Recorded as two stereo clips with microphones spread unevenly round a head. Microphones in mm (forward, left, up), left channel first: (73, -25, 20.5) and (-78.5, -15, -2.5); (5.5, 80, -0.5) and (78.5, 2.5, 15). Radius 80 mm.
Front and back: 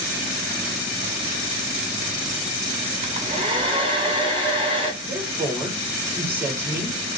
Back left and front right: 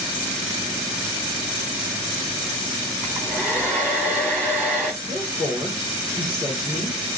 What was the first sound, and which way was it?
A hair dryer, 125° right.